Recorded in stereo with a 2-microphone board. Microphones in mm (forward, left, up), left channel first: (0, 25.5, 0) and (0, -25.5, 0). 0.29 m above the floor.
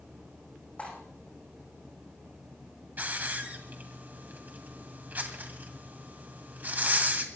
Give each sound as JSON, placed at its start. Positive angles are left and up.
{"t": 0.8, "sound": "cutlery clinking", "side_deg": 25, "distance_m": 9.0}
{"t": 3.0, "sound": "a hiss", "side_deg": -35, "distance_m": 2.0}